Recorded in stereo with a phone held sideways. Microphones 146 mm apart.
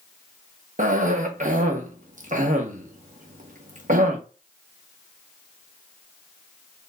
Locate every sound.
0.8 s a cough: 60° right (ahead or behind), 1.0 m